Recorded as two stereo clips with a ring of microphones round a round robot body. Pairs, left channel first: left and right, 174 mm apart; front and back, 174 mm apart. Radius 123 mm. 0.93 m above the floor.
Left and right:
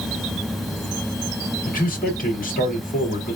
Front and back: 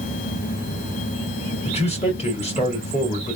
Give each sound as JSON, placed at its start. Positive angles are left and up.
{"t": 1.6, "sound": "a man speaking", "azimuth_deg": 55, "distance_m": 2.0}